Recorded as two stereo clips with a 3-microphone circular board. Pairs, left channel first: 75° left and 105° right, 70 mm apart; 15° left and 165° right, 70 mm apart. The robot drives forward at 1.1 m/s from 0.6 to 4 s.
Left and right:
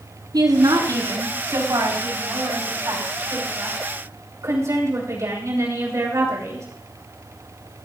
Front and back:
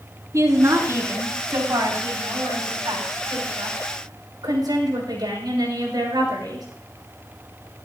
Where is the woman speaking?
120° right, 4 m; by 6.7 s 150° right, 6.5 m.